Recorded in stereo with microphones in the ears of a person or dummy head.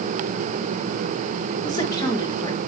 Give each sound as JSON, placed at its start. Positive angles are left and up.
{"t": 1.6, "sound": "a woman speaking", "side_deg": 20, "distance_m": 2.0}